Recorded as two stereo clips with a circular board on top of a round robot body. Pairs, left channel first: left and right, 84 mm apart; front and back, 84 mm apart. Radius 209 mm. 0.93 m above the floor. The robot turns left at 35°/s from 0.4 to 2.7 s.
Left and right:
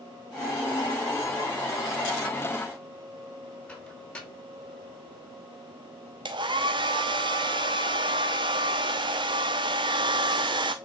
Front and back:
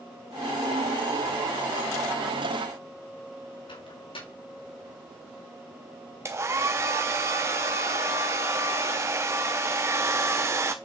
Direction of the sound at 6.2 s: 120° right.